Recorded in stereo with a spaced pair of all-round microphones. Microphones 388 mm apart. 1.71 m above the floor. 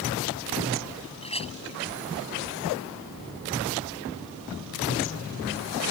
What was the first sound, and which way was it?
A clink, 15° left (ahead or behind).